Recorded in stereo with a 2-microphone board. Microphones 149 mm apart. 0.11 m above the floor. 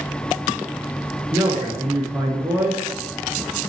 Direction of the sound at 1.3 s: 15° right (ahead or behind).